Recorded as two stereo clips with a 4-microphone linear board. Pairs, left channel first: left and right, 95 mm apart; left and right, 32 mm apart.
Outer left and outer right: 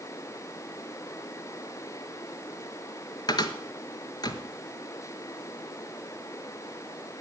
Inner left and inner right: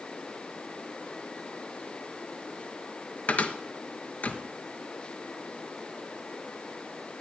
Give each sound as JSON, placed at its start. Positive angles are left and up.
{"t": 3.3, "sound": "a cupboard door", "side_deg": 50, "distance_m": 1.3}